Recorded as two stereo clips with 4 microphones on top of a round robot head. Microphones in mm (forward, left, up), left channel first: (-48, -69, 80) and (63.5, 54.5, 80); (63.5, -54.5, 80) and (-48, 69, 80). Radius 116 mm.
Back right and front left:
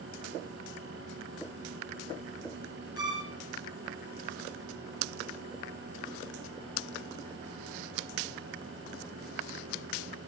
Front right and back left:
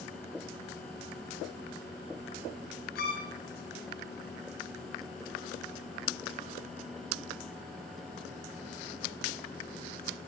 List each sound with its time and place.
3.0 s a violin: 20° right, 4 m